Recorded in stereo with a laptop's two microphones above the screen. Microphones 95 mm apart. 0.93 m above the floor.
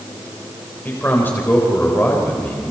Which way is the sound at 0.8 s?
20° left (ahead or behind).